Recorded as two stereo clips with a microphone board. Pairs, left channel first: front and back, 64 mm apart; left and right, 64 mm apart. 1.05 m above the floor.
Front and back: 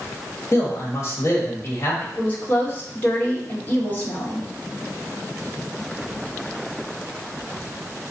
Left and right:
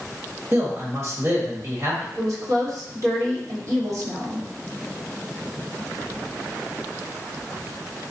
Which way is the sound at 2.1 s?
60° right.